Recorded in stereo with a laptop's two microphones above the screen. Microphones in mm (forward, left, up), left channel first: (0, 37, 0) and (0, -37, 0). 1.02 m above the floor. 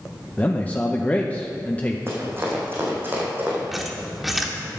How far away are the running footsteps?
About 4 m.